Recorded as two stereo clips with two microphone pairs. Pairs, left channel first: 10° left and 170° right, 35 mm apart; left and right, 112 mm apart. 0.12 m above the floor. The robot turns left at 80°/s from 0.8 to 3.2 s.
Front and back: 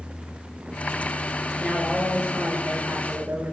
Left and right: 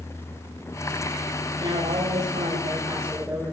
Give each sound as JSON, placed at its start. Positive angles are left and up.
{"t": 1.6, "sound": "a woman speaking", "azimuth_deg": -45, "distance_m": 7.5}